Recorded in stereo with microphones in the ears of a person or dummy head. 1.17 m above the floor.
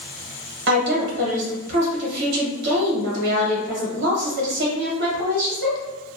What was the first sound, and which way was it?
A woman speaking, 65° right (ahead or behind).